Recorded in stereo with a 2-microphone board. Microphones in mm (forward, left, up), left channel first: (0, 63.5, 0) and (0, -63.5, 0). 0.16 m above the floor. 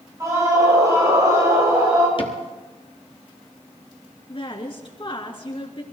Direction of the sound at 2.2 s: 45° left (ahead or behind).